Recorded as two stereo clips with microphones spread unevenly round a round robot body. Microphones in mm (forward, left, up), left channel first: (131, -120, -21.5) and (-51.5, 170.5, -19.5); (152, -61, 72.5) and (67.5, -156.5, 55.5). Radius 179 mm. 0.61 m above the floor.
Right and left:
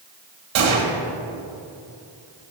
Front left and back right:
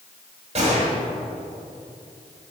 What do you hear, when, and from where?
0.6 s a gunshot: 170° left, 1.7 m